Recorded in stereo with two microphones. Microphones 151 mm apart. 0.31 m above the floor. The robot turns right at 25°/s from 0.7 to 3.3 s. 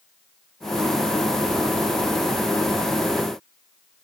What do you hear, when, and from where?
Only background noise.